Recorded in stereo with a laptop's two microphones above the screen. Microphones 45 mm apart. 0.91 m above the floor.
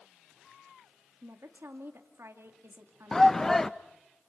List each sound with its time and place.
1.2 s a woman speaking: 65° right (ahead or behind), 2 m
3.1 s a shout: 10° left (ahead or behind), 0.7 m